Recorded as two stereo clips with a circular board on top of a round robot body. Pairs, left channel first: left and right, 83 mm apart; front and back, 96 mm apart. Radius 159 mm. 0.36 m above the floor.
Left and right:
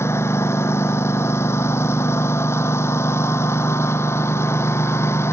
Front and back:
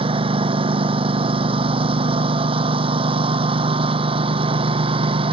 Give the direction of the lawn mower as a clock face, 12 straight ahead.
7 o'clock.